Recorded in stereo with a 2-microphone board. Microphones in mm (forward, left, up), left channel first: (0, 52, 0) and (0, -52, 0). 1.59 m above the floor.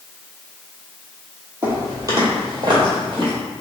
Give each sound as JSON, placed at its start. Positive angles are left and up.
{"t": 1.6, "sound": "footsteps", "side_deg": -25, "distance_m": 1.9}